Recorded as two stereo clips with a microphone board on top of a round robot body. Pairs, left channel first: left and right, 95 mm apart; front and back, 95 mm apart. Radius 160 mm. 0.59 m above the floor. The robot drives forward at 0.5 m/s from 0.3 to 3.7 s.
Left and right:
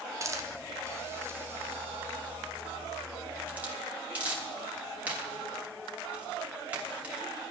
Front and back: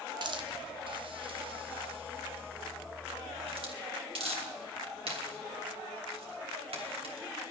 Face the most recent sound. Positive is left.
turn(degrees=-165)